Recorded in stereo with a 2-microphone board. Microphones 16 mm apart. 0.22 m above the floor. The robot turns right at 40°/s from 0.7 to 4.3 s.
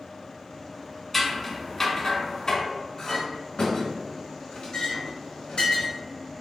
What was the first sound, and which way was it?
Scissors, 5° left (ahead or behind).